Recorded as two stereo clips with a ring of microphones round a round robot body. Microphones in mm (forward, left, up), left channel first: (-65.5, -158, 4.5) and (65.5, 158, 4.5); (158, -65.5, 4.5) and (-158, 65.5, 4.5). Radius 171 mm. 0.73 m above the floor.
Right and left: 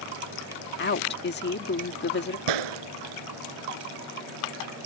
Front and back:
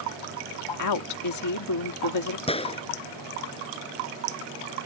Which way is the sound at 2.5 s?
50° left.